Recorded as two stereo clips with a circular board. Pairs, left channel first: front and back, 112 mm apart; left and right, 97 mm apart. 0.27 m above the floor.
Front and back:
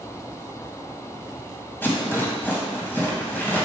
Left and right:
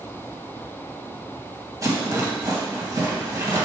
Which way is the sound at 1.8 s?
60° right.